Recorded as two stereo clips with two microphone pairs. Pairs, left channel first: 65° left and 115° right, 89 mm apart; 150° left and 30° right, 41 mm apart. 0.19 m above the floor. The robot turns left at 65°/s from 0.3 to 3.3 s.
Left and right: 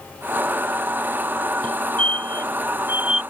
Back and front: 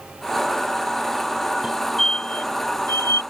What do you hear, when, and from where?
1.6 s a fire alarm: 100° right; by 3.2 s 155° left